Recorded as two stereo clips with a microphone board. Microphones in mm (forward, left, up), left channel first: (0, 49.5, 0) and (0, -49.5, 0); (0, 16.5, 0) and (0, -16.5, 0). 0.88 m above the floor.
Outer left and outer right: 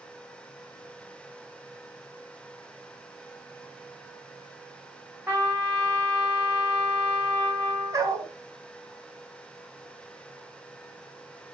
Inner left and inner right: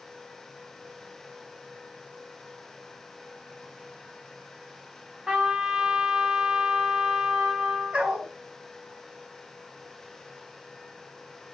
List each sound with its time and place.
5.3 s a trumpet: 30° right (ahead or behind), 5 m
7.9 s a dog barking: 35° right (ahead or behind), 2 m